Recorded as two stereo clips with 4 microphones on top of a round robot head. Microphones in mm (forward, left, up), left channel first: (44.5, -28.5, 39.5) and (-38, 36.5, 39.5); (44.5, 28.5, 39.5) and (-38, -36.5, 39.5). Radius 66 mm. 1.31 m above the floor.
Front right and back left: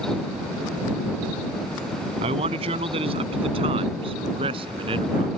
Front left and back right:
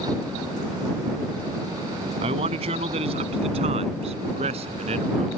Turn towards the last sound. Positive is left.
turn(degrees=-175)